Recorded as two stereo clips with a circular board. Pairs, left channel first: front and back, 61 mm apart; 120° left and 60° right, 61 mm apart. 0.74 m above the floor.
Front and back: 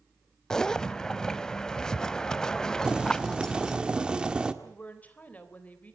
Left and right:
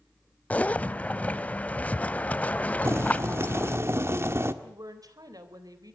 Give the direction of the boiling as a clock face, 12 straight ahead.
3 o'clock.